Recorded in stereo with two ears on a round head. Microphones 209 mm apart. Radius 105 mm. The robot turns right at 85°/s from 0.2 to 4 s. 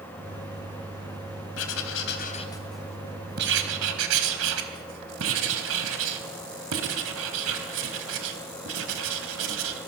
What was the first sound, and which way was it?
Writing, 80° left.